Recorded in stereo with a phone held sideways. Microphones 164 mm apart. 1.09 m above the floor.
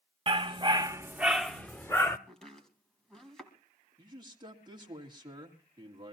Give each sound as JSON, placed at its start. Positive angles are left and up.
{"t": 0.3, "sound": "a dog barking", "side_deg": -35, "distance_m": 0.9}
{"t": 2.3, "sound": "chopping", "side_deg": 5, "distance_m": 2.0}
{"t": 4.0, "sound": "a man speaking", "side_deg": -30, "distance_m": 2.5}